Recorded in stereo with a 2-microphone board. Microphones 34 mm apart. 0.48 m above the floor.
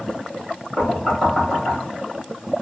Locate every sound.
0.8 s knocking: 5° left (ahead or behind), 1.6 m